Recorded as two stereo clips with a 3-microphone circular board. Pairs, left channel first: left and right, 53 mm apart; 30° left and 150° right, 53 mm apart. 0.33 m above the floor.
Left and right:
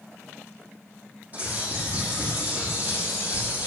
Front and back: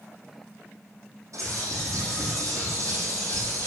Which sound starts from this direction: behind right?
A bird, at 1.3 s.